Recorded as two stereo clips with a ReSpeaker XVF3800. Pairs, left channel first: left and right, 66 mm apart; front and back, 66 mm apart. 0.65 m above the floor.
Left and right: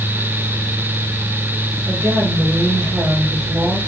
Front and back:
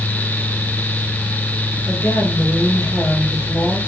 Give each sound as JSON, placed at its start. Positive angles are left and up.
{"t": 1.9, "sound": "a woman speaking", "azimuth_deg": -50, "distance_m": 2.0}